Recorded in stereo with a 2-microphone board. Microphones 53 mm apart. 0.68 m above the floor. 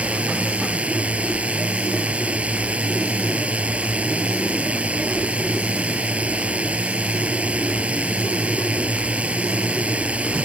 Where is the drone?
25° right (ahead or behind).